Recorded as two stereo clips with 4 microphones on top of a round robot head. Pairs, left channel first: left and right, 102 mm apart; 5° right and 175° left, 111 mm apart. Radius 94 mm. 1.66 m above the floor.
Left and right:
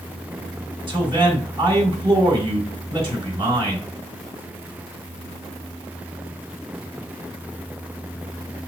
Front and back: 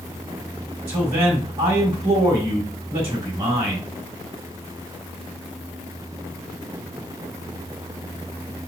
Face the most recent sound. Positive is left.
turn(degrees=-130)